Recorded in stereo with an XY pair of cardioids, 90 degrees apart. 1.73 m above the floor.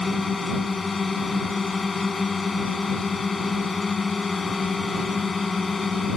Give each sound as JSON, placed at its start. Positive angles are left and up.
{"t": 0.0, "sound": "a drone", "azimuth_deg": 35}